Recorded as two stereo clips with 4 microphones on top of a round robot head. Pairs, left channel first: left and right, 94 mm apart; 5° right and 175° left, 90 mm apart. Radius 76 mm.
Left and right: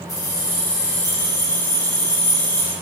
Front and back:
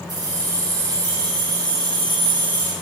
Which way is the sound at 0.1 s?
140° left.